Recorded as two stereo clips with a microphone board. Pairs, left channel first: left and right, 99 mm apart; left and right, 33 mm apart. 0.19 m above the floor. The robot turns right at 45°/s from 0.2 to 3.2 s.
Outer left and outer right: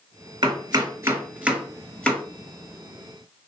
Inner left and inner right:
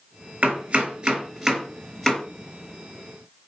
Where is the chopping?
50° right (ahead or behind), 3 m; by 2.2 s 15° left (ahead or behind), 3 m.